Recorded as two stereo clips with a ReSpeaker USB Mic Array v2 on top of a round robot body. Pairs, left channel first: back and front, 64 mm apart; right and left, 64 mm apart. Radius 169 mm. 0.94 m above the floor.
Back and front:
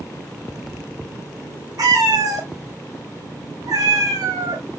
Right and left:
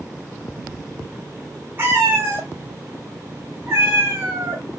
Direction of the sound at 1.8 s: 35° left.